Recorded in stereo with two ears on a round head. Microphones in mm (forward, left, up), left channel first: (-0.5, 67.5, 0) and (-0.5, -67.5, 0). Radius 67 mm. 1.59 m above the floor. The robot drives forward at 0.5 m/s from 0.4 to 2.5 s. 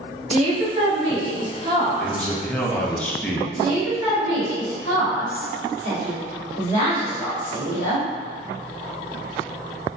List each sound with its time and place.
0.3 s a woman speaking: 45° right (ahead or behind), 0.9 m; by 3.0 s 20° right (ahead or behind), 1.8 m
2.0 s a man speaking: 5° left (ahead or behind), 0.7 m; by 3.5 s 10° left (ahead or behind), 0.5 m
3.6 s a woman speaking: 55° left (ahead or behind), 1.5 m